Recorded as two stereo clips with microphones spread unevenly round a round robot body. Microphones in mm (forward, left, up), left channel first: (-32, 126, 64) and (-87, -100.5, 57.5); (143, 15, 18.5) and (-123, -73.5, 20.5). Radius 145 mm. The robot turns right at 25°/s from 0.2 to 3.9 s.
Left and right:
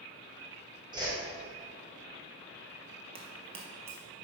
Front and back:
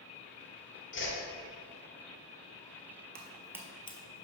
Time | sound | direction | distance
0.9 | a whoosh | 30° right | 2.0 m
3.1 | footsteps | 155° right | 1.0 m